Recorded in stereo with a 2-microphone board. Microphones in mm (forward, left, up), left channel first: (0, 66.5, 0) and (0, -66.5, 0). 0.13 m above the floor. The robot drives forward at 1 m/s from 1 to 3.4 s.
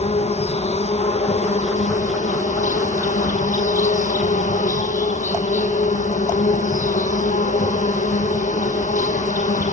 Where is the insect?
55° left (ahead or behind), 3 m; by 9.7 s 75° left (ahead or behind), 2.5 m.